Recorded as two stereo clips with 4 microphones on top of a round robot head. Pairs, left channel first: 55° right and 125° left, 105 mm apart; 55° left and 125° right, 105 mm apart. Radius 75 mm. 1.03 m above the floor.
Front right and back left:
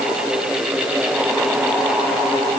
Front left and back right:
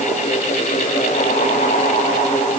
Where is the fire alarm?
I don't hear a fire alarm.